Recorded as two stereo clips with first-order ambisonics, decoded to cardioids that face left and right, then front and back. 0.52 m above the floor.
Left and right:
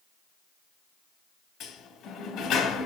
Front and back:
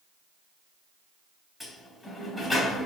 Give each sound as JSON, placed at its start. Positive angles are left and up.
{"t": 1.6, "sound": "a sliding door", "azimuth_deg": 70, "distance_m": 1.1}